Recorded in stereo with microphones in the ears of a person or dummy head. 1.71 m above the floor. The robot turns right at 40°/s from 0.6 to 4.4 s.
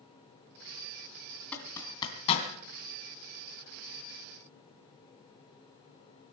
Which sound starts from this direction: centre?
A zipper, at 1.5 s.